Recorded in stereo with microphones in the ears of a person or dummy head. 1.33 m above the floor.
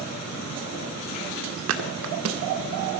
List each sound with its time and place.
1.7 s a thud: 65° right (ahead or behind), 1.8 m